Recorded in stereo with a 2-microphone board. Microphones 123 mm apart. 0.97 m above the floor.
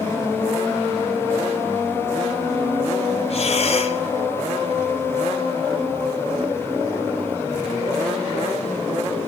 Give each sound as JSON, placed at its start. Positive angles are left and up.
{"t": 3.3, "sound": "breathing", "side_deg": 60, "distance_m": 1.3}